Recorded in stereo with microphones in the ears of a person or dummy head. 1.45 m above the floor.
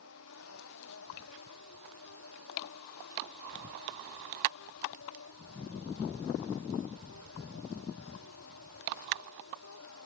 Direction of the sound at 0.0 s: 90° left.